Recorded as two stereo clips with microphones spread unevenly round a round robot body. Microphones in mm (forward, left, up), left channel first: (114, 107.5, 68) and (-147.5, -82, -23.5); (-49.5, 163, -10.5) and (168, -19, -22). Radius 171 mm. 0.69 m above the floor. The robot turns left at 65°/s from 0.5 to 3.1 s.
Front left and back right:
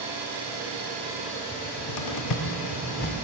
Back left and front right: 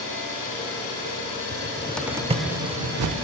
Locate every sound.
0.0 s an engine running: 175° left, 3.5 m; by 3.2 s 5° left, 3.5 m
1.5 s a cupboard door: 85° left, 0.5 m; by 3.1 s 20° right, 0.5 m